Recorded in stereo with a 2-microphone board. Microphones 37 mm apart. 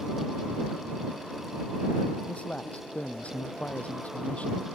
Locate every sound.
2.3 s a man speaking: 40° left (ahead or behind)